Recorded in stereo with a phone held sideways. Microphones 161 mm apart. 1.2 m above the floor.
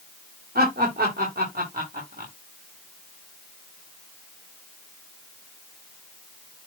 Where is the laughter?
85° right, 4 m; by 2.3 s 75° right (ahead or behind), 3.5 m.